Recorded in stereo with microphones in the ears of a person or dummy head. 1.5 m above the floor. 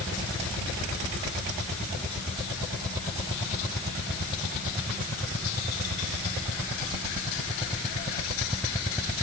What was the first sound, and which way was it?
Only background noise.